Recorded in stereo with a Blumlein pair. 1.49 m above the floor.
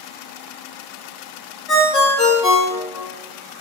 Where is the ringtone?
15° left, 1.1 m.